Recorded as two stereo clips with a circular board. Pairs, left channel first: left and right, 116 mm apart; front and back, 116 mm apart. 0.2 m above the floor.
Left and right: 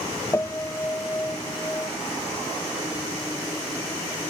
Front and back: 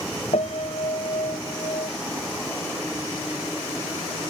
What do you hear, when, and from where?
0.3 s a piano: 20° left